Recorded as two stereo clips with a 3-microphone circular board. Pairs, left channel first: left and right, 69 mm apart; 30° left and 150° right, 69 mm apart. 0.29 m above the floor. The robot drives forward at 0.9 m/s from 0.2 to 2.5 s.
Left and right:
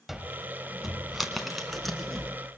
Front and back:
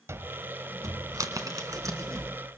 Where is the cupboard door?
175° right, 0.8 m; by 2.6 s straight behind, 2.5 m.